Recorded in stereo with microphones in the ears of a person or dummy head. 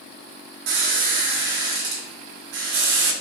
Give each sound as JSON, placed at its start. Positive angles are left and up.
{"t": 0.7, "sound": "a squeak", "side_deg": -70, "distance_m": 0.7}